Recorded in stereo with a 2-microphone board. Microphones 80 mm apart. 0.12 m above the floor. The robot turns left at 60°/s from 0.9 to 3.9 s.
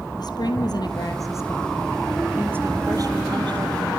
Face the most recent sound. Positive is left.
turn(degrees=-110)